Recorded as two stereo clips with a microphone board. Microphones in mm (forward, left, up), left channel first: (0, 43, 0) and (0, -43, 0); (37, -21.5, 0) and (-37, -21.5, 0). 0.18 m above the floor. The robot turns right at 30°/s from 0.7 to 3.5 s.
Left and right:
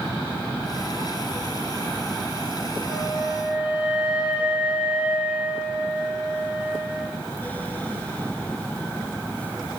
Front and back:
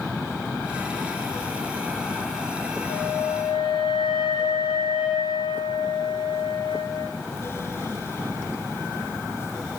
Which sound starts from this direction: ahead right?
A flute, at 2.9 s.